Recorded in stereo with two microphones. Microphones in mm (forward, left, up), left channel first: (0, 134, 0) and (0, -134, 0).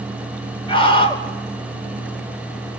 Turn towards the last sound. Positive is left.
turn(degrees=20)  # may be behind; listen again after turning